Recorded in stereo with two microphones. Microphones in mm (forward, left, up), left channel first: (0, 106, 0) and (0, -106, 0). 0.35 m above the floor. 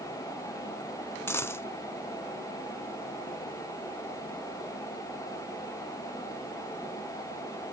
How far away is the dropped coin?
About 0.7 m.